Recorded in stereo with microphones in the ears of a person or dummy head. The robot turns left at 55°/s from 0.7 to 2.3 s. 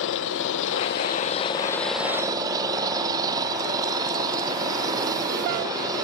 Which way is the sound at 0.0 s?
65° left.